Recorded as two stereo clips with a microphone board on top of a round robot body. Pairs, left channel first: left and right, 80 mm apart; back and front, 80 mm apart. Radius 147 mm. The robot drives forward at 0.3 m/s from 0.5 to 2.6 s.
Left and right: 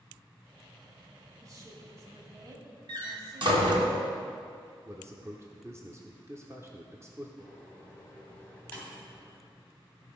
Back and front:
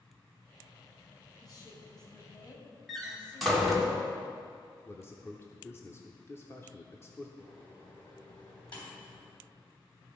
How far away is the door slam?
About 1.6 m.